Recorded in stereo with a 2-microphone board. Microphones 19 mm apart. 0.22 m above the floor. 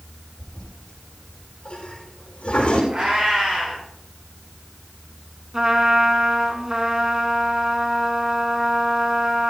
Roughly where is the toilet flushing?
Left.